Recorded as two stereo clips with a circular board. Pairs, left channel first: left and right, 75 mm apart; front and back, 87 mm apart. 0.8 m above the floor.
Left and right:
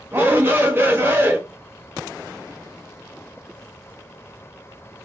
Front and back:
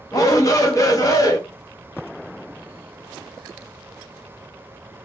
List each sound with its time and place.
0.1 s a shout: 40° right, 0.7 m